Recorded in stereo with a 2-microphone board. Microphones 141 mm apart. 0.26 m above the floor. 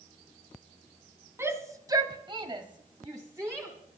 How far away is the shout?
About 2 m.